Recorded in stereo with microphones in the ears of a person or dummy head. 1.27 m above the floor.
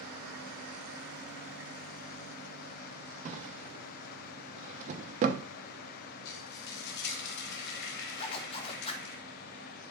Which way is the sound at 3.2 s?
40° right (ahead or behind).